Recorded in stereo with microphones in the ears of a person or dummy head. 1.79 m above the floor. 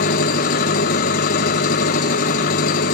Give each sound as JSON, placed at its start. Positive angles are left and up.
{"t": 0.0, "sound": "an engine running", "side_deg": 30, "distance_m": 1.1}